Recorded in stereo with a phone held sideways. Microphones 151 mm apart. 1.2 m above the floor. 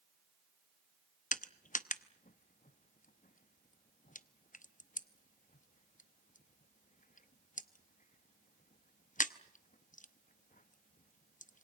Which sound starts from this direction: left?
Crushing, at 1.3 s.